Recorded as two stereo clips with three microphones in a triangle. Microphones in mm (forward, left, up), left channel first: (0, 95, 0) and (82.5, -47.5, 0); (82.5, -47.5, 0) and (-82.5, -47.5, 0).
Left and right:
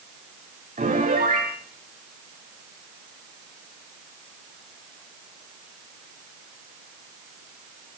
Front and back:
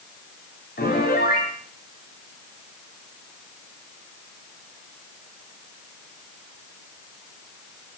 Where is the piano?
20° right, 6 m.